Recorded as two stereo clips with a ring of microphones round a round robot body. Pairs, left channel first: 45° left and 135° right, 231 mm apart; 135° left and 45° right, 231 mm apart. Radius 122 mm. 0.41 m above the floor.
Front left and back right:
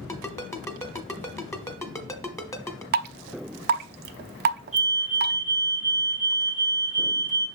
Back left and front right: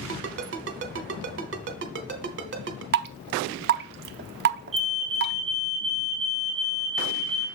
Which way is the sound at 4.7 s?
10° right.